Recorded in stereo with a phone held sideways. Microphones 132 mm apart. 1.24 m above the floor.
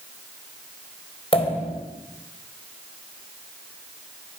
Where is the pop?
45° left (ahead or behind), 4.5 m.